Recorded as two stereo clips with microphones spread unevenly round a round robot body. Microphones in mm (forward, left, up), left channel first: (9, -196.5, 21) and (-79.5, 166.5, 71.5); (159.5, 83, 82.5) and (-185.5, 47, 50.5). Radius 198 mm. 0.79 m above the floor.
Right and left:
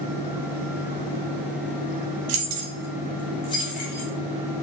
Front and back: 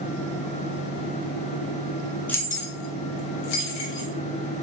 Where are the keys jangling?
95° left, 0.8 m; by 4.1 s 10° right, 1.7 m.